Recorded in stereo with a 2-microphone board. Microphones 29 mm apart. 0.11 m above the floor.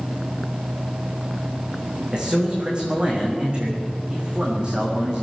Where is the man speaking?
35° right (ahead or behind), 8 m.